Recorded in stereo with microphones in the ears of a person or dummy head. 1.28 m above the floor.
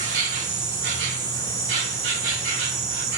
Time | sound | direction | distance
0.0 | an insect | 65° right (ahead or behind) | 3.5 m